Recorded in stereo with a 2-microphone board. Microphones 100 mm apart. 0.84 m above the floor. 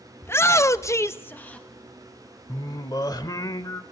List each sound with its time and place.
0.2 s a shout: 25° left (ahead or behind), 0.8 m; by 1.7 s 10° left (ahead or behind), 0.9 m
2.5 s singing: 40° left (ahead or behind), 1.0 m